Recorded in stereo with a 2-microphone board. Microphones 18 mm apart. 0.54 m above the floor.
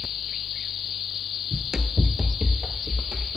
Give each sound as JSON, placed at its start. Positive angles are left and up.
{"t": 1.5, "sound": "running footsteps", "side_deg": -20, "distance_m": 0.5}